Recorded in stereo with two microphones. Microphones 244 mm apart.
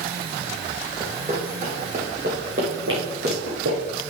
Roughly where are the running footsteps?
Centre.